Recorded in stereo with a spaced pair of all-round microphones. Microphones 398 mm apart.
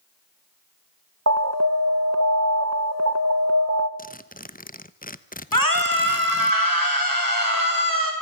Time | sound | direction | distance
1.3 | an alarm | 40° right (ahead or behind) | 1.5 m
4.0 | a zipper | 20° left (ahead or behind) | 1.0 m
5.5 | a scream | 55° left (ahead or behind) | 5.5 m